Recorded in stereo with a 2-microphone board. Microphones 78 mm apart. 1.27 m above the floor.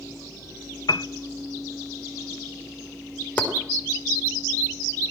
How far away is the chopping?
About 4 m.